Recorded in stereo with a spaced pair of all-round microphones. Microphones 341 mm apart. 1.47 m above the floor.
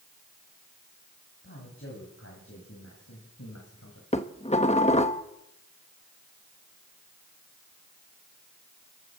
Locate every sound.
1.4 s a man speaking: 35° left (ahead or behind), 8 m; by 4.0 s 50° left (ahead or behind), 6.5 m
4.1 s dishes clattering: 20° left (ahead or behind), 1.3 m